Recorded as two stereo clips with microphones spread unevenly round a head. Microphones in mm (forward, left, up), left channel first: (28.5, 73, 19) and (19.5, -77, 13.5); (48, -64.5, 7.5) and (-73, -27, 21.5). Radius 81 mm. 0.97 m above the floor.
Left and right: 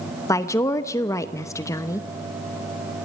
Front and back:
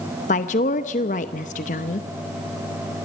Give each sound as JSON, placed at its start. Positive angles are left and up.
{"t": 0.3, "sound": "a woman speaking", "azimuth_deg": 15, "distance_m": 0.7}